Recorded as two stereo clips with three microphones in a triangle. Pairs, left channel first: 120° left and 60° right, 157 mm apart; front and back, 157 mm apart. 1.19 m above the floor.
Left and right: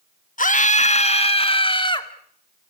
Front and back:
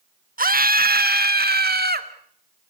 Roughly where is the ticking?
No ticking in this recording.